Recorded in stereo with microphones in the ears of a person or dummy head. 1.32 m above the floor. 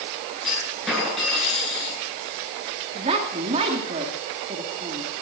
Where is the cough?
I don't hear a cough.